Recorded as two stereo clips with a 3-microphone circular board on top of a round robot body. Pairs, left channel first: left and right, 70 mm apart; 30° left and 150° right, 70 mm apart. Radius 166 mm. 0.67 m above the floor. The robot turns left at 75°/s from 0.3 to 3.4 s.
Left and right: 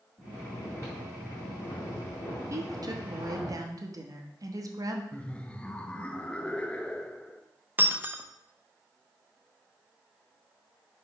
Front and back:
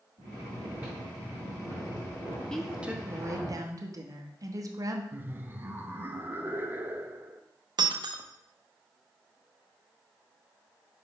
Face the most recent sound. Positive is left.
turn(degrees=-155)